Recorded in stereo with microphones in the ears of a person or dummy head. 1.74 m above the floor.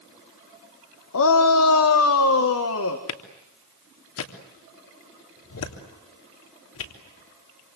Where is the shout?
70° left (ahead or behind), 1.4 m; by 3.0 s 75° left (ahead or behind), 2.5 m.